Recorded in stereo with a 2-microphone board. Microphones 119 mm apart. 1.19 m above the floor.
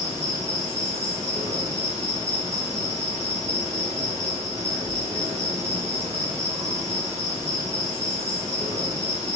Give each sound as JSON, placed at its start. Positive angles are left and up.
{"t": 0.0, "sound": "an insect", "side_deg": -25, "distance_m": 1.1}